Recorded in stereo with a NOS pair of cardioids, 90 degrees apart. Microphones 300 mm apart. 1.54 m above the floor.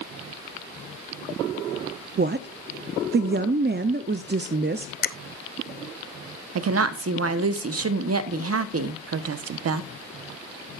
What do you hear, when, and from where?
2.2 s a woman speaking: 35° right, 0.7 m
5.0 s a finger snap: 35° left, 0.8 m
6.5 s a woman speaking: 55° right, 1.2 m